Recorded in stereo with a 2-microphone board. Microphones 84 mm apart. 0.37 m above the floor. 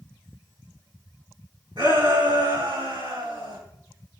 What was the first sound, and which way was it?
A shout, 65° right (ahead or behind).